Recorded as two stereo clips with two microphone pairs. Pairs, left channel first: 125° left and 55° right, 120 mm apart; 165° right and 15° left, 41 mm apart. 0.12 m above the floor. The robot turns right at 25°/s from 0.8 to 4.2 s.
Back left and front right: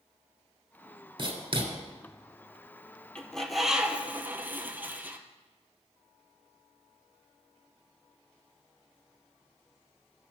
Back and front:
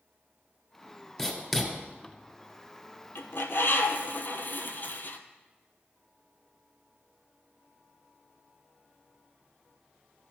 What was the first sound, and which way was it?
Writing, 80° right.